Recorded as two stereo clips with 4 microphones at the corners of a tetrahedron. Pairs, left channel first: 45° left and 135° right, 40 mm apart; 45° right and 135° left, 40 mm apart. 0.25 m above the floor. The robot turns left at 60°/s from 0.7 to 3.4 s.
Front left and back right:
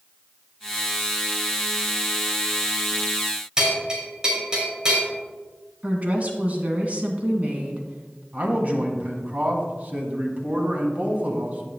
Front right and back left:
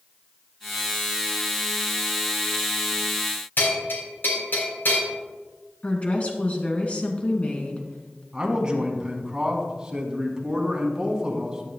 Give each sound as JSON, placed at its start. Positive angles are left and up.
{"t": 3.6, "sound": "a bell", "azimuth_deg": -65, "distance_m": 5.0}
{"t": 5.8, "sound": "a woman speaking", "azimuth_deg": -95, "distance_m": 2.0}
{"t": 8.3, "sound": "a man speaking", "azimuth_deg": -165, "distance_m": 1.9}